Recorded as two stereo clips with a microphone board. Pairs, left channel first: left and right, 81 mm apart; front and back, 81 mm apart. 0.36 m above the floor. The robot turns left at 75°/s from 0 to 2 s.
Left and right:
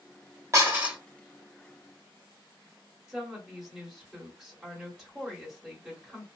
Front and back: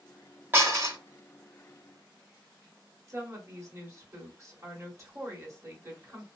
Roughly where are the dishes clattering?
Behind right.